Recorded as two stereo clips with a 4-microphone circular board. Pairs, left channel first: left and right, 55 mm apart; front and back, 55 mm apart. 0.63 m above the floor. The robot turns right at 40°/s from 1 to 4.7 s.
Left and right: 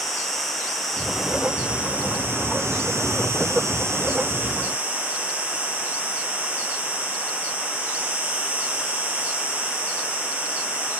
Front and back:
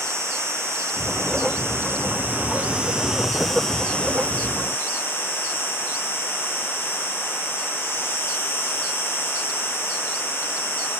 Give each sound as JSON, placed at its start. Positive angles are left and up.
{"t": 0.0, "sound": "an insect", "azimuth_deg": 170, "distance_m": 3.5}